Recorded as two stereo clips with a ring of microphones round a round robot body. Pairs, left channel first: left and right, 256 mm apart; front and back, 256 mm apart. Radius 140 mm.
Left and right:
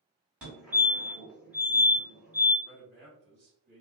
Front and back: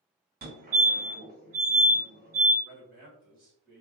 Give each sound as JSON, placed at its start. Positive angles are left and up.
{"t": 0.4, "sound": "a fire alarm", "azimuth_deg": -170, "distance_m": 2.0}
{"t": 2.6, "sound": "a man speaking", "azimuth_deg": -145, "distance_m": 1.5}